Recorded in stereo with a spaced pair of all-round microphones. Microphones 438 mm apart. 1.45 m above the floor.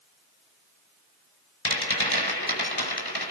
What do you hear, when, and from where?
1.6 s a rattle: 60° left (ahead or behind), 5.5 m